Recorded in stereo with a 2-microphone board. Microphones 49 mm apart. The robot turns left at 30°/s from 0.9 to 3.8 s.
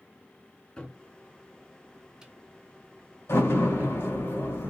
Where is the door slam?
80° left, 2.5 m; by 4.7 s 65° left (ahead or behind), 2.5 m.